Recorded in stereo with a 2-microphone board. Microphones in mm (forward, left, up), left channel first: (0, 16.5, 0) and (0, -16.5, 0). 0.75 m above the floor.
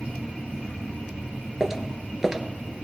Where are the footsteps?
10° right (ahead or behind), 0.8 m.